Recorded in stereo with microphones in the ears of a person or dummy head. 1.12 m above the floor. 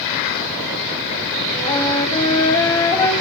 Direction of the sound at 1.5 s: 15° left (ahead or behind).